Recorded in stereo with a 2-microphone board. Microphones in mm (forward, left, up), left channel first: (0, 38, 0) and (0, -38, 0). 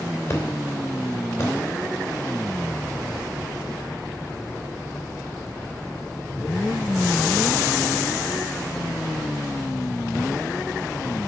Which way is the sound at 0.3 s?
35° left (ahead or behind).